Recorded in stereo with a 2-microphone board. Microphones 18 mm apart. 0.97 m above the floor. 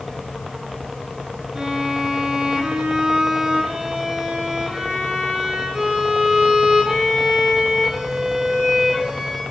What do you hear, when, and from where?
1.6 s a violin: 30° right (ahead or behind), 9 m